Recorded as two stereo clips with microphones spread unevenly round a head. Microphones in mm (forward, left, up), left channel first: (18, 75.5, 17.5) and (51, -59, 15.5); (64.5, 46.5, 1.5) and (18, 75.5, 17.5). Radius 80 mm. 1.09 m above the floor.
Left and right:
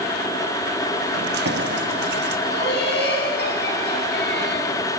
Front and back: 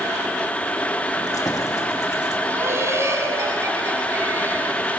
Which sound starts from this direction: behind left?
Laughter, at 2.5 s.